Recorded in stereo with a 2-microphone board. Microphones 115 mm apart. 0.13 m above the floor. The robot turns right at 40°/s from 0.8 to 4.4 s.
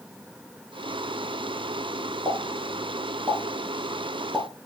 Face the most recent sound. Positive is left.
turn(degrees=0)  # may be behind; listen again after turning